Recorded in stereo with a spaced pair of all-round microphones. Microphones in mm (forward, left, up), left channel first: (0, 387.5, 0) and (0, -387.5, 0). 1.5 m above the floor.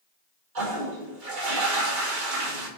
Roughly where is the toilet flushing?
Right.